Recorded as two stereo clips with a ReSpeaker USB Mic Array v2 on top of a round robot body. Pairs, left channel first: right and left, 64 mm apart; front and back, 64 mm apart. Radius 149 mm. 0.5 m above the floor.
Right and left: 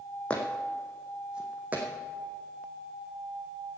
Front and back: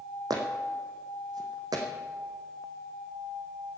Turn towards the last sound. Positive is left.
turn(degrees=155)